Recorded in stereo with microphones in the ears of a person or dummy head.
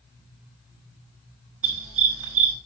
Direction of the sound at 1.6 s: 70° right (ahead or behind).